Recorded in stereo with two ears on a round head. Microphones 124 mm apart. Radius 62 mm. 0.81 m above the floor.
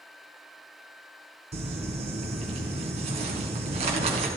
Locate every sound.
1.5 s crumpling: 50° right (ahead or behind), 3 m